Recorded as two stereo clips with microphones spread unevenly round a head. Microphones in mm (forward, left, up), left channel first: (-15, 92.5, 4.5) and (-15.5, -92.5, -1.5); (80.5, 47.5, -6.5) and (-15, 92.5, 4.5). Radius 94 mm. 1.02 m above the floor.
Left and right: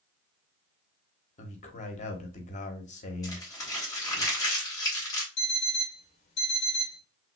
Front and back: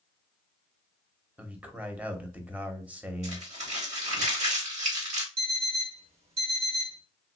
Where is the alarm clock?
145° left, 1.2 m.